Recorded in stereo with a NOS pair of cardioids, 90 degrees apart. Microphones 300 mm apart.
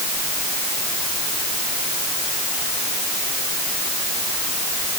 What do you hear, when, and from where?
Only background noise.